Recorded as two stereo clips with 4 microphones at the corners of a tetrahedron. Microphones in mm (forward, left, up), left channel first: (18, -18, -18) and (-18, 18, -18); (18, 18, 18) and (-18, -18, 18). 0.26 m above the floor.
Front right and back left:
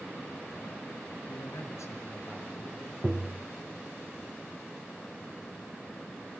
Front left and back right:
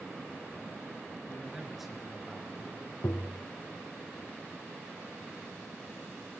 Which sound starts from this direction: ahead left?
Tapping, at 3.0 s.